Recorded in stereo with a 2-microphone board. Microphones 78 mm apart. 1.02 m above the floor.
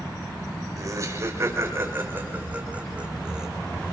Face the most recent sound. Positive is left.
turn(degrees=-10)  # may be behind; listen again after turning